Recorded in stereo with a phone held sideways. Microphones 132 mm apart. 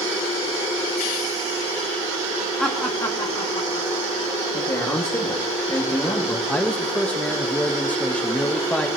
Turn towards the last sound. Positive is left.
turn(degrees=10)  # may be behind; listen again after turning